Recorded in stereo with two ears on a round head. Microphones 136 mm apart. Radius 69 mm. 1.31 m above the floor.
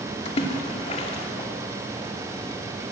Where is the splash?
40° left (ahead or behind), 2.5 m.